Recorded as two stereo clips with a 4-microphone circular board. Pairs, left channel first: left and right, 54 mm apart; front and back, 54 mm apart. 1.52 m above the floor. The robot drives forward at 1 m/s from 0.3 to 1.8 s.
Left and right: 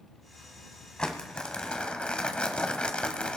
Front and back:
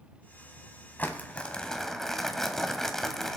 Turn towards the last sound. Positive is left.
turn(degrees=65)